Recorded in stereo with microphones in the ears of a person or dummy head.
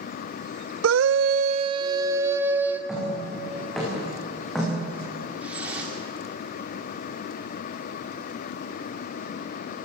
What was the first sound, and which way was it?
A scream, 85° right.